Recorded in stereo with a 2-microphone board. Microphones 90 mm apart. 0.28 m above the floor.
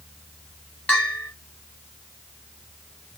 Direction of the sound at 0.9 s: 15° left (ahead or behind).